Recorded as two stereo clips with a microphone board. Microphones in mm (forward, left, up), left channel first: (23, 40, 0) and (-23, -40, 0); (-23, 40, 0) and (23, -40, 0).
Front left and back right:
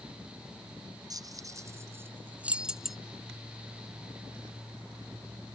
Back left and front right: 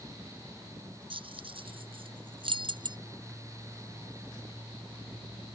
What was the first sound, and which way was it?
Keys jangling, 75° right.